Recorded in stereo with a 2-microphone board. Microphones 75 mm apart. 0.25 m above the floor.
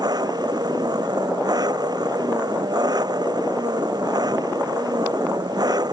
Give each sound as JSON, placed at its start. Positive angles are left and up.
{"t": 0.0, "sound": "an engine running", "side_deg": -65}